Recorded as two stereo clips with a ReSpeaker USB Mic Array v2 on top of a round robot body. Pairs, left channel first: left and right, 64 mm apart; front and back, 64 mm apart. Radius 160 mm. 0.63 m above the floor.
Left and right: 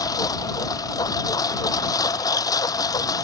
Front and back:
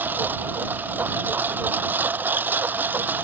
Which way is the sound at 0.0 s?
115° left.